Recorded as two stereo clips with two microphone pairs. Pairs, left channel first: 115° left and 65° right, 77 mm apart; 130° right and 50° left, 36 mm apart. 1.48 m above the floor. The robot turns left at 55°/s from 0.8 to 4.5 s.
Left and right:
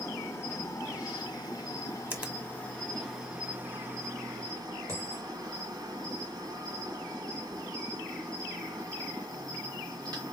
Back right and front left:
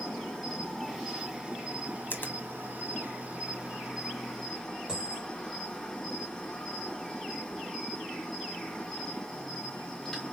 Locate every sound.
0.0 s an insect: 150° left, 2 m; by 10.3 s 50° right, 2 m
2.1 s a finger snap: 130° right, 1.2 m; by 2.4 s 145° right, 1.2 m
4.9 s a dropped coin: 20° right, 3 m